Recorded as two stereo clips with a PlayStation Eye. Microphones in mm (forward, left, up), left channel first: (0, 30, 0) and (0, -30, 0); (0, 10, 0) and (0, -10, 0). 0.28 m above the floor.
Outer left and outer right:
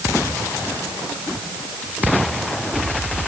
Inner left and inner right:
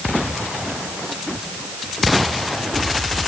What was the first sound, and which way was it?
Only background noise.